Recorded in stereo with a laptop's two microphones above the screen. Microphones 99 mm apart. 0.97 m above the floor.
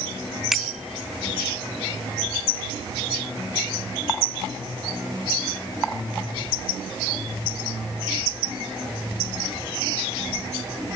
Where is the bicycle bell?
5° right (ahead or behind).